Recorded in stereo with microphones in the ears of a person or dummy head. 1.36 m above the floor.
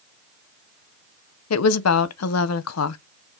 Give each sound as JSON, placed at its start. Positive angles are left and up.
{"t": 1.5, "sound": "a woman speaking", "side_deg": 75, "distance_m": 0.6}